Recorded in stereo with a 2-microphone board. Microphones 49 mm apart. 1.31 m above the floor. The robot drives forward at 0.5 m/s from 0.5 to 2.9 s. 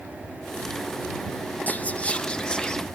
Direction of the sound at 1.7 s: 35° left (ahead or behind).